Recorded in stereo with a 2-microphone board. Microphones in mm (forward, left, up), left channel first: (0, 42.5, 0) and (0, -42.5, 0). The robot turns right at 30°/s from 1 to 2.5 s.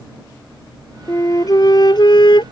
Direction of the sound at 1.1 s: 40° left.